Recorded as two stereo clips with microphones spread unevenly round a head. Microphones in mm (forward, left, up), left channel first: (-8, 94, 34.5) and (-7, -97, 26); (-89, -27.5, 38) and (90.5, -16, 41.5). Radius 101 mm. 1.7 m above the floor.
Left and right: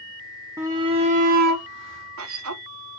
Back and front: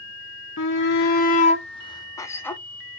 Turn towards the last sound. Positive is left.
turn(degrees=-95)